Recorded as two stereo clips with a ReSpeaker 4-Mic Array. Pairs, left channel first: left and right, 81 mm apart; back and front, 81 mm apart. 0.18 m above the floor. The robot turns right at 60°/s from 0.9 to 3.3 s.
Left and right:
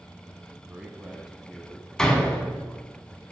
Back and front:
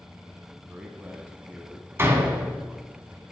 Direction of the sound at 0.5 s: 40° right.